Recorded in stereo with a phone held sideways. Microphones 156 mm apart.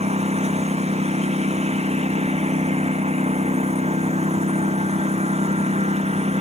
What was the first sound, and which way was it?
A lawn mower, 40° right (ahead or behind).